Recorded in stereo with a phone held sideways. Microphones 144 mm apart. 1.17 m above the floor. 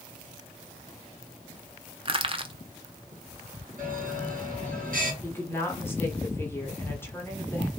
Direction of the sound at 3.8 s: 70° right (ahead or behind).